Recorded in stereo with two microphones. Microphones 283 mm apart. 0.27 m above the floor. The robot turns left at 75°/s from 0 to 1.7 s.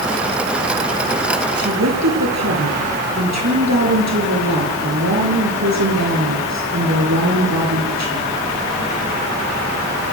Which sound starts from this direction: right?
A woman speaking, at 1.6 s.